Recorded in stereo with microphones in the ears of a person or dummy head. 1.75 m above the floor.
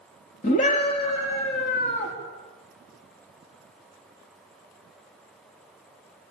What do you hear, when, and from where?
0.4 s a scream: 35° left (ahead or behind), 4.5 m